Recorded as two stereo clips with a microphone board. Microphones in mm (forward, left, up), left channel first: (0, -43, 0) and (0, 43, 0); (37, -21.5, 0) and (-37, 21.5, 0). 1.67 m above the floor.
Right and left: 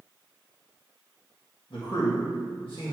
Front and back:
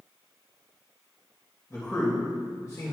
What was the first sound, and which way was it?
A man speaking, 80° right.